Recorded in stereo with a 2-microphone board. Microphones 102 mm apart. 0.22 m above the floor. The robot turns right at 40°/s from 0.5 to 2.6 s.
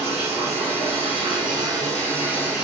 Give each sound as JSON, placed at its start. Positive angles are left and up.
{"t": 0.0, "sound": "running water", "azimuth_deg": -90, "distance_m": 2.0}